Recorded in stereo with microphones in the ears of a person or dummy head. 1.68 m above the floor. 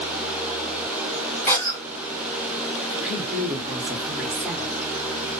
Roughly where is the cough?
Centre.